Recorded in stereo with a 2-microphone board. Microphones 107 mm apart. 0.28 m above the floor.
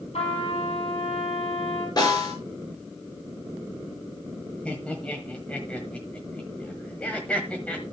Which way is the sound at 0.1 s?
80° left.